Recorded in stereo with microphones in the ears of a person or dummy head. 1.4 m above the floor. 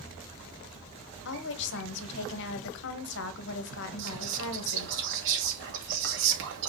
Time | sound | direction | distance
1.2 | a woman speaking | 65° left (ahead or behind) | 1.3 m
4.0 | whispering | 70° right (ahead or behind) | 1.9 m